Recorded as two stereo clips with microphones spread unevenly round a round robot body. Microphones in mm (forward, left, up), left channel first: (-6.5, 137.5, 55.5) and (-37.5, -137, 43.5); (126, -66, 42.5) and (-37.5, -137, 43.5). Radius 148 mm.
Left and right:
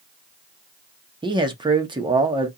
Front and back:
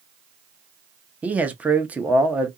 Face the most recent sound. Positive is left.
turn(degrees=-90)